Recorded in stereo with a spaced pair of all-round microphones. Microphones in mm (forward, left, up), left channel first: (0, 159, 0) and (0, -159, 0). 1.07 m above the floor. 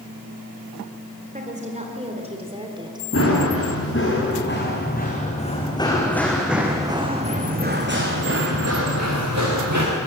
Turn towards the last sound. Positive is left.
turn(degrees=-60)  # may be behind; listen again after turning